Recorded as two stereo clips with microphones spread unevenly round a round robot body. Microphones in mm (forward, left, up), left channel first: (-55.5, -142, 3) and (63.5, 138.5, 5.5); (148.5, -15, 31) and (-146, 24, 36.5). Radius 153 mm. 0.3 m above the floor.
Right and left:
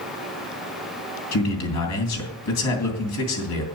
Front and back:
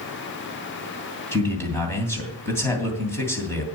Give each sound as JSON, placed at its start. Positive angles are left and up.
{"t": 1.3, "sound": "a man speaking", "azimuth_deg": -90, "distance_m": 3.0}